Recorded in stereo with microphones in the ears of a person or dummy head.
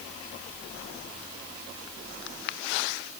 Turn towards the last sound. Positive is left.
No sound to turn to.